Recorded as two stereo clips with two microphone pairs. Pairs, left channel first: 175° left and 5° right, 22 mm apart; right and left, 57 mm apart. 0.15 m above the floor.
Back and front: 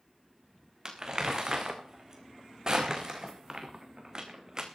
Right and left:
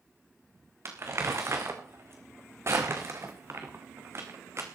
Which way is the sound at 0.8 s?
50° left.